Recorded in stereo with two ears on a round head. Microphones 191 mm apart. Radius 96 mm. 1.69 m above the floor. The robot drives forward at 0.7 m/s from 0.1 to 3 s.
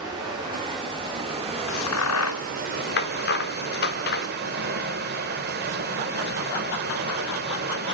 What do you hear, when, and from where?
0.0 s running water: 20° right (ahead or behind), 3 m; by 7.9 s 45° right (ahead or behind), 1.3 m
1.7 s a crack: 65° left (ahead or behind), 0.8 m; by 4.3 s 50° left (ahead or behind), 1.0 m